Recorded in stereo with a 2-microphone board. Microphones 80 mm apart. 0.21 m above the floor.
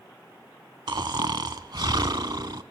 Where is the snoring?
55° right (ahead or behind), 0.6 m.